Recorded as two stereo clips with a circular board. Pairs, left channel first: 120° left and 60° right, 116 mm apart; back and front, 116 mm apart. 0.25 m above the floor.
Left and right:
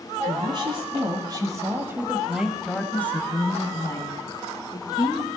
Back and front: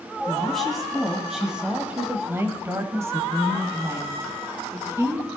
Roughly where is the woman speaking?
Right.